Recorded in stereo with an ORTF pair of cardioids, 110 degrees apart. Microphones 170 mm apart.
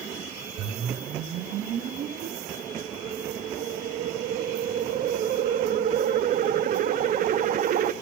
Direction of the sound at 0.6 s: 55° right.